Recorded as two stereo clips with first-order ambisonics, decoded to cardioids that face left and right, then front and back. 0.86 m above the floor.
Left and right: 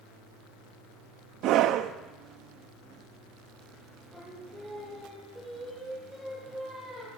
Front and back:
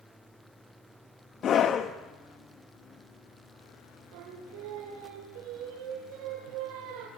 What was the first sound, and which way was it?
A scream, 55° right.